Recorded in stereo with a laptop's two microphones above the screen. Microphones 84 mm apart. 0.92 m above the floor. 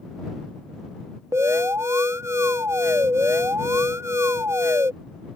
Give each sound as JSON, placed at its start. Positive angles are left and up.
{"t": 1.3, "sound": "an alarm", "side_deg": -35}